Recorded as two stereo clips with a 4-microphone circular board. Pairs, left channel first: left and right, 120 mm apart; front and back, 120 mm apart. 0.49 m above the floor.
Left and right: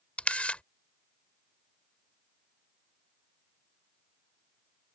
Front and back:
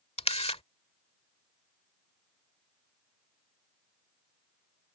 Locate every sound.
0.2 s a camera shutter: 10° left